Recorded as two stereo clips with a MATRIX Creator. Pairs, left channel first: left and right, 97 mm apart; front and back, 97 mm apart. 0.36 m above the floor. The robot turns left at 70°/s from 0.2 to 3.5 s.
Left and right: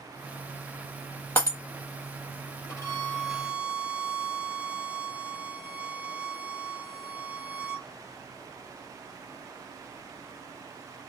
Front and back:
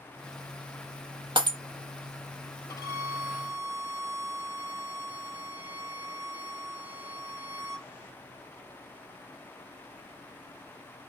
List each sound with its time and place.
1.4 s breaking glass: 150° left, 0.8 m; by 1.6 s 135° left, 0.8 m
2.7 s a violin: 50° left, 1.1 m; by 7.9 s 5° right, 1.1 m